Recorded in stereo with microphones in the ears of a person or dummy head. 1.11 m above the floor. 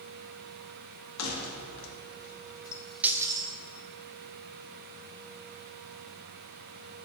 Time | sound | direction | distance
1.2 | keys jangling | 85° left | 1.5 m